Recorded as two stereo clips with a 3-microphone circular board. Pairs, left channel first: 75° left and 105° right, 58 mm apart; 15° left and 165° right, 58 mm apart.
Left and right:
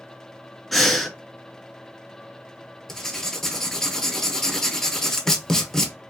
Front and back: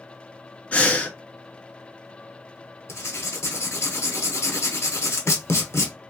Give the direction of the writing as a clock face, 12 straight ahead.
12 o'clock.